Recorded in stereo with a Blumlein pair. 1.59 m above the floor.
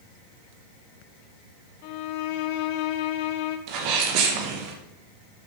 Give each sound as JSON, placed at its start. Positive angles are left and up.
{"t": 1.8, "sound": "a violin", "azimuth_deg": 45, "distance_m": 0.9}
{"t": 3.7, "sound": "a sneeze", "azimuth_deg": -45, "distance_m": 1.8}